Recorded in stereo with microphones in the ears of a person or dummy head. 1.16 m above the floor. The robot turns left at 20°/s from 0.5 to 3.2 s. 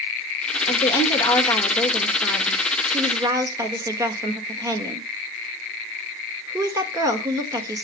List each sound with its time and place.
0.7 s a woman speaking: 25° left, 1.8 m; by 7.8 s 25° right, 1.8 m